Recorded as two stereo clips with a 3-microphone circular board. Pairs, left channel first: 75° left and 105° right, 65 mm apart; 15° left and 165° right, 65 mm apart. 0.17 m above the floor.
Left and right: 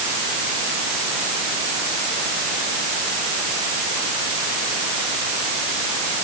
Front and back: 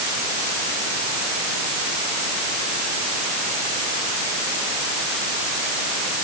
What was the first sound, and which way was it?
Only background noise.